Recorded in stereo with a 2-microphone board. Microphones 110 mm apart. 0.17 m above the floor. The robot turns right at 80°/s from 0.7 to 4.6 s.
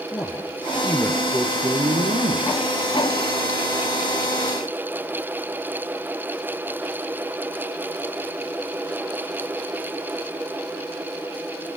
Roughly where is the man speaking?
Behind left.